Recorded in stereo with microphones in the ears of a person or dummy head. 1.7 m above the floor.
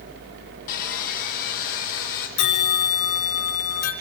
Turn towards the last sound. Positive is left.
turn(degrees=60)  # may be behind; listen again after turning